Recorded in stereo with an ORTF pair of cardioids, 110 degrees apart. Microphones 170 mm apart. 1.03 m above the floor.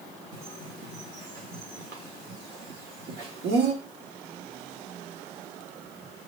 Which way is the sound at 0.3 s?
70° right.